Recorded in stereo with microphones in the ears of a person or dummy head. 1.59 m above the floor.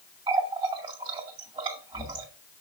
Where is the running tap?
30° right (ahead or behind), 2 m.